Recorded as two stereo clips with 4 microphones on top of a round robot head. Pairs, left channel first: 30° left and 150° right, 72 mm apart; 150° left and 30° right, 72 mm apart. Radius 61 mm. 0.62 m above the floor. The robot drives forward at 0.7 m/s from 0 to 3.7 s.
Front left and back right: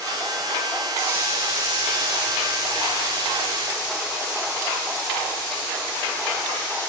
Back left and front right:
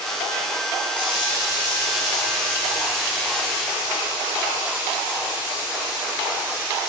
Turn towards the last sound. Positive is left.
turn(degrees=175)